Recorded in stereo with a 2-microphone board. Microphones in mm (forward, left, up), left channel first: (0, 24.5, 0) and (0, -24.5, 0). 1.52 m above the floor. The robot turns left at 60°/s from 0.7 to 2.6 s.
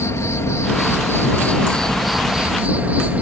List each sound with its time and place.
0.0 s an insect: 80° left; by 3.2 s 35° right